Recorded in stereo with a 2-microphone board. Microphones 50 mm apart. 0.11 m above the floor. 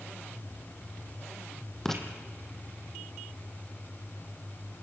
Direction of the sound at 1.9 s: 5° left (ahead or behind).